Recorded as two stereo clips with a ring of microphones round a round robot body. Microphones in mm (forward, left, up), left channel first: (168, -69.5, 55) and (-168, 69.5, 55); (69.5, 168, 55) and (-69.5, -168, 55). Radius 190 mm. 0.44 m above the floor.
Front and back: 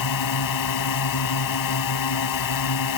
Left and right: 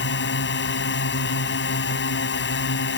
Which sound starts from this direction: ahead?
A drone, at 0.0 s.